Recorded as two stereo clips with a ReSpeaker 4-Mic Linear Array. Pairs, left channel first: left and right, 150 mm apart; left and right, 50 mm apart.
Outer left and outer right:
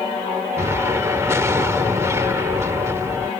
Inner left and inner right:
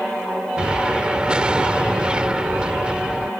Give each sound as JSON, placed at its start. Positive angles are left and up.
{"t": 0.6, "sound": "an explosion", "side_deg": -20}